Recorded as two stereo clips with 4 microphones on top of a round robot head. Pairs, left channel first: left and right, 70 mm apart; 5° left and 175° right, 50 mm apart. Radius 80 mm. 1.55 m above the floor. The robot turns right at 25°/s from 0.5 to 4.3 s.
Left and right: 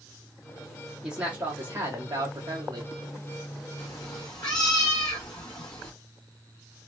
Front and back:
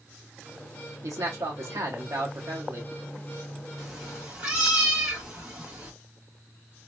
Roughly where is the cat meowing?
Left.